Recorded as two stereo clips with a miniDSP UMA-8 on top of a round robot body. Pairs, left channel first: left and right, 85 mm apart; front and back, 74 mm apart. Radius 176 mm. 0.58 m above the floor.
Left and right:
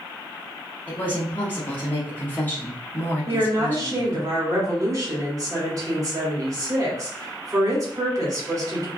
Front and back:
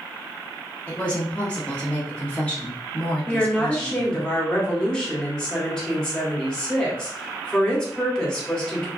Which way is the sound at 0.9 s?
50° left.